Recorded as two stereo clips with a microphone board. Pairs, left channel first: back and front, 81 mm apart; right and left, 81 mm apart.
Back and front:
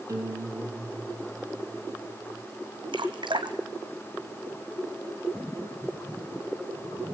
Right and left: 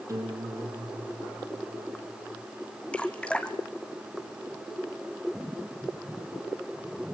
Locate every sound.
0.1 s a guitar: 45° left, 4.5 m
2.9 s dripping: 15° right, 1.5 m